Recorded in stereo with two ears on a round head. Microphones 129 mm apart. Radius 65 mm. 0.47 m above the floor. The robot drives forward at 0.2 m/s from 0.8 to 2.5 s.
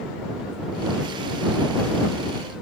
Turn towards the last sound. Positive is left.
No sound to turn to.